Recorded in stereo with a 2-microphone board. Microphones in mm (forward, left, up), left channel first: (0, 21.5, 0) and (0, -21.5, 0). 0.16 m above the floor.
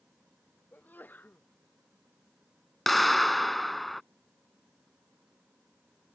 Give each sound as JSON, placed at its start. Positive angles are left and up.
{"t": 0.7, "sound": "a sneeze", "side_deg": 40}
{"t": 2.9, "sound": "a clap", "side_deg": 5}